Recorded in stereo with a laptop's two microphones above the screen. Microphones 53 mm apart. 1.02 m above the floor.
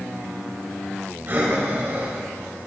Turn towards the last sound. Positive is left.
turn(degrees=-40)  # may be behind; listen again after turning